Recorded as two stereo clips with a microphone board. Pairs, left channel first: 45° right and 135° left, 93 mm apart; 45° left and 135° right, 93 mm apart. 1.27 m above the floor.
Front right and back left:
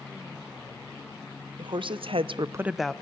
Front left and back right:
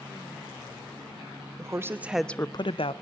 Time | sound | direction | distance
1.6 | a woman speaking | 170° left | 1.3 m